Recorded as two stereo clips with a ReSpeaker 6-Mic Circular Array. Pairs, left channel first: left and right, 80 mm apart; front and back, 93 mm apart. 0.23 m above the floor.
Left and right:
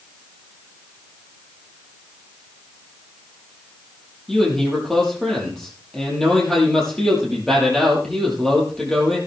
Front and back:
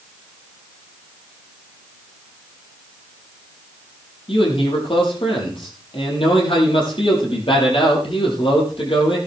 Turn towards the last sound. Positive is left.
turn(degrees=5)